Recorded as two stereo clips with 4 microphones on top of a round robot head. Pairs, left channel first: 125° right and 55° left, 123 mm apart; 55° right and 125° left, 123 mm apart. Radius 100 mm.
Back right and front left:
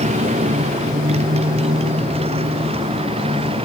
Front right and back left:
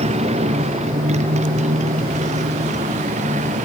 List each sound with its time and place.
0.0 s a motorcycle: 85° left; by 3.7 s 100° left